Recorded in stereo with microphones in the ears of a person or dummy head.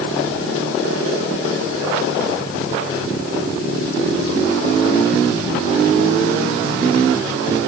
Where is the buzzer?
No buzzer in this recording.